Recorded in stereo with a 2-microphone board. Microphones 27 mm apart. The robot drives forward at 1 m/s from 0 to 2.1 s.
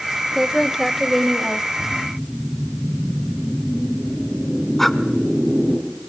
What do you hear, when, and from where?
0.3 s a woman speaking: 5° right (ahead or behind), 0.8 m
1.8 s a whoosh: 25° left (ahead or behind), 5 m
4.8 s breathing: 10° left (ahead or behind), 1.1 m